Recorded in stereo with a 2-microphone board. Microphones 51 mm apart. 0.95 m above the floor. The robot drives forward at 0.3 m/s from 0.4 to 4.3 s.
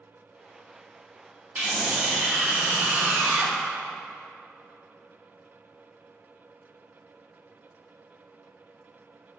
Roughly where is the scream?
Right.